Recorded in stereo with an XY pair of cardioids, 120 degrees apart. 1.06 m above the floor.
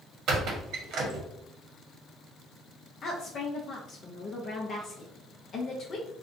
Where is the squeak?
65° right, 0.8 m.